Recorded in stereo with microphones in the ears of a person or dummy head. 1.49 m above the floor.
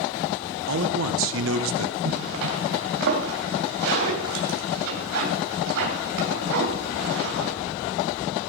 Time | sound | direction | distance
0.7 | a man speaking | 70° right (ahead or behind) | 1.4 m
2.0 | a zipper | 65° right (ahead or behind) | 2.5 m